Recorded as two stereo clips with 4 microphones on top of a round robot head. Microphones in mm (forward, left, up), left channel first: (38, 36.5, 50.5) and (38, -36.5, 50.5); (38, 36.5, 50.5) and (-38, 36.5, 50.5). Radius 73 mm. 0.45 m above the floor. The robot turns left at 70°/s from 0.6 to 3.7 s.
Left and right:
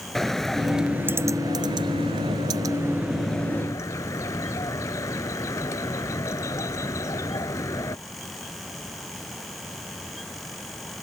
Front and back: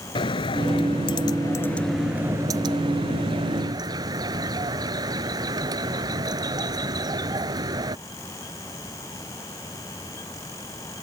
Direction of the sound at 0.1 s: 5° left.